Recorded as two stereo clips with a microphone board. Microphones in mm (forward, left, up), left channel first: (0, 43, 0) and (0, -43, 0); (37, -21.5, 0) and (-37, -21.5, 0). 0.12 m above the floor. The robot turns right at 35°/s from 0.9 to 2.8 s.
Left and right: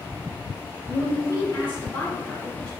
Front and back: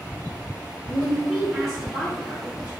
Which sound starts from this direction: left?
A woman speaking, at 0.9 s.